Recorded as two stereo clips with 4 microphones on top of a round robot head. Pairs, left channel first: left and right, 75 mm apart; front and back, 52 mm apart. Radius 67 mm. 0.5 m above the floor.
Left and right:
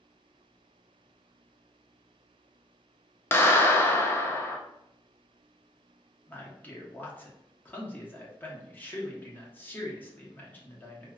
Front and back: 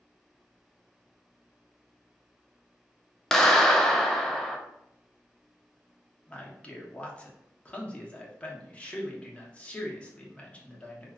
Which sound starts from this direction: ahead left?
A man speaking, at 6.3 s.